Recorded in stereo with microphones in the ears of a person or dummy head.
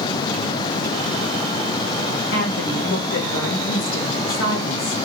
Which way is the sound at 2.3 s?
65° left (ahead or behind).